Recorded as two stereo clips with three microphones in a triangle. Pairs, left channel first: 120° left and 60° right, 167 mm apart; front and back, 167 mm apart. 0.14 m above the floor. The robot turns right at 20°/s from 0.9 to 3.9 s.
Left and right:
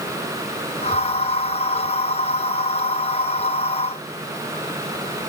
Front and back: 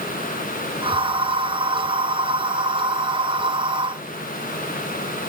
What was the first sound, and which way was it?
Only background noise.